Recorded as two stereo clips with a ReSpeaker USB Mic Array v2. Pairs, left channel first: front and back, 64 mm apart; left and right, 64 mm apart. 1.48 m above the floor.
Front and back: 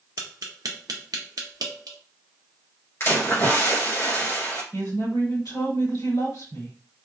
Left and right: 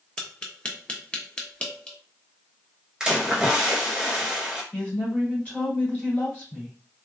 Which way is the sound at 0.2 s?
160° left.